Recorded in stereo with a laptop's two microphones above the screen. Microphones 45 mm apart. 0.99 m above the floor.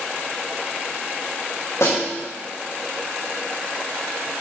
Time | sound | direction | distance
1.8 | a snare drum | 80° left | 4.5 m